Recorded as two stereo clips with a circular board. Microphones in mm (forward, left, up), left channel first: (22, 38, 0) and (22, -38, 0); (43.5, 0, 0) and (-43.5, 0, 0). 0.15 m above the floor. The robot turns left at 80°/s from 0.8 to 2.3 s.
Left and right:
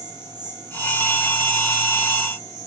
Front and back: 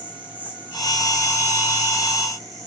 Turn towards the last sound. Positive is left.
turn(degrees=130)